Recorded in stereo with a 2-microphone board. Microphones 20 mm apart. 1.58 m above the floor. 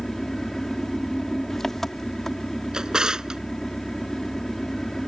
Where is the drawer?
35° right (ahead or behind).